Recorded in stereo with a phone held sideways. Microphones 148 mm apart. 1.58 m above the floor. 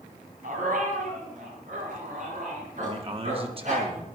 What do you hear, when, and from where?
0.4 s a dog barking: 70° right (ahead or behind), 4.5 m; by 3.8 s 55° right (ahead or behind), 7 m
2.8 s a man speaking: 40° right (ahead or behind), 2 m